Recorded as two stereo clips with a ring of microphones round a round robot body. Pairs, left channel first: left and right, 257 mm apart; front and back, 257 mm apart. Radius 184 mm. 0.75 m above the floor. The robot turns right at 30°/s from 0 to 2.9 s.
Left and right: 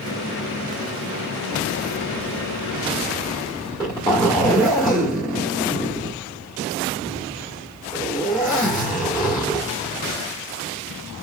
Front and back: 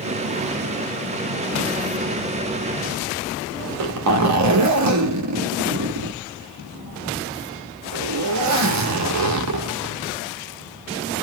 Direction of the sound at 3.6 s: 170° left.